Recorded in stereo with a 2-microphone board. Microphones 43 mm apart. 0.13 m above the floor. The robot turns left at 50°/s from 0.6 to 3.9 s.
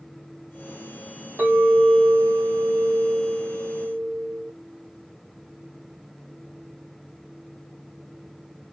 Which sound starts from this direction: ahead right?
A clink, at 1.4 s.